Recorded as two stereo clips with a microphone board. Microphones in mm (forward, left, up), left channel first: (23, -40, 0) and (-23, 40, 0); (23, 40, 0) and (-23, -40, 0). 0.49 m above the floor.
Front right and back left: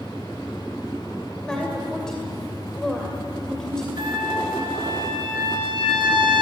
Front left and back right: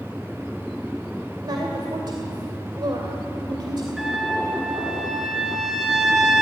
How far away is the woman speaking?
About 2.5 m.